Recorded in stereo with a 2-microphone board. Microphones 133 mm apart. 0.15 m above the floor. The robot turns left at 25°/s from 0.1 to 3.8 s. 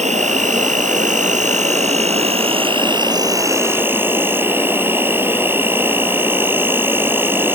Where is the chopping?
I don't hear chopping.